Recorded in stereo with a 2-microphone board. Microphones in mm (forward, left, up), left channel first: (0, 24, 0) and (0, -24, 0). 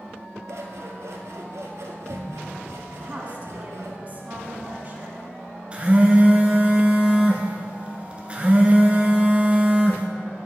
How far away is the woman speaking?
About 1.8 m.